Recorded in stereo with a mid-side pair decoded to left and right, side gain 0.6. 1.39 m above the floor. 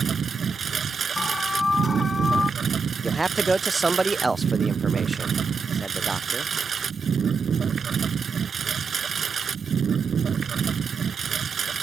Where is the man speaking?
15° right.